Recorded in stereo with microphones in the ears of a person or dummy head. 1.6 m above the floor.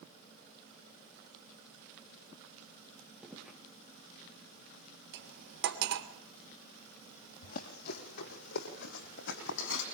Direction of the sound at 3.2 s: 5° right (ahead or behind).